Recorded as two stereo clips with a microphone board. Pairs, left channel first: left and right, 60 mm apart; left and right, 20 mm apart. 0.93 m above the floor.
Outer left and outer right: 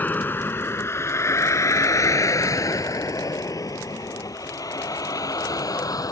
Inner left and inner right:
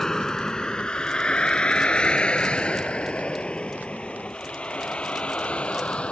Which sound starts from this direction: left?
A vehicle, at 0.0 s.